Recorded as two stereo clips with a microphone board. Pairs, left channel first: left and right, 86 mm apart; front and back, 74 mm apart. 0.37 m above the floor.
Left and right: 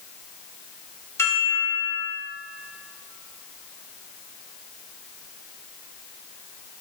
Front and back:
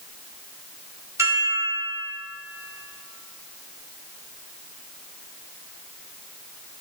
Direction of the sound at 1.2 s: 140° left.